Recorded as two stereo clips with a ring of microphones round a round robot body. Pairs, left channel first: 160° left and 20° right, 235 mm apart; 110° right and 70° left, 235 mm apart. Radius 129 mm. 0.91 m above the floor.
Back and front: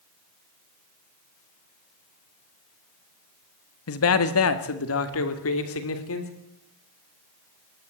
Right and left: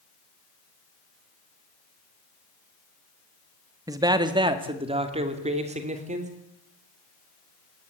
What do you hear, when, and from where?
3.9 s a man speaking: 145° left, 1.7 m; by 6.3 s 130° left, 3.5 m